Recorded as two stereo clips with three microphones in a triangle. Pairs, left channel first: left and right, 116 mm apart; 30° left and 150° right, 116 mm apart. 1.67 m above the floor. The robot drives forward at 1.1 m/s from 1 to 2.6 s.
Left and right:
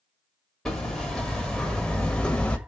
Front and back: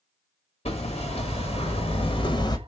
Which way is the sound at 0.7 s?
5° left.